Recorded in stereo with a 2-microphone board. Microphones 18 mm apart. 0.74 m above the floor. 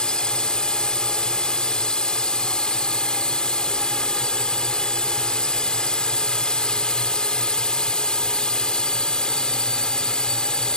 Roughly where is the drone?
Left.